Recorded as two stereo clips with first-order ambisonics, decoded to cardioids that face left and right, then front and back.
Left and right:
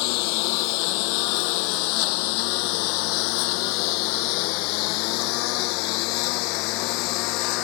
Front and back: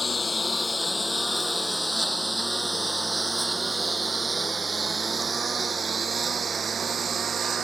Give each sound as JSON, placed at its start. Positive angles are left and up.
{"t": 0.0, "sound": "a lawn mower", "azimuth_deg": 80}